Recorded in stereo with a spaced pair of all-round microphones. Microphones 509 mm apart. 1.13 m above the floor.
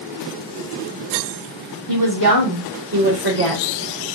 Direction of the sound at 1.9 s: 35° right (ahead or behind).